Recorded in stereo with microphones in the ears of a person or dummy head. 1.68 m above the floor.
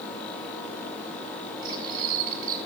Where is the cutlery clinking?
45° right (ahead or behind), 7 m.